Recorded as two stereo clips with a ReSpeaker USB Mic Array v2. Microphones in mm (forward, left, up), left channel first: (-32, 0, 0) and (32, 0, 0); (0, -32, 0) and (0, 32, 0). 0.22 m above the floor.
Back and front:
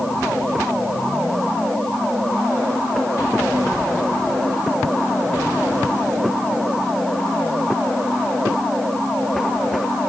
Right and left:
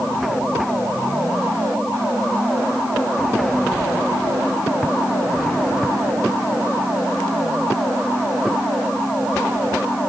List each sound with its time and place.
Only background noise.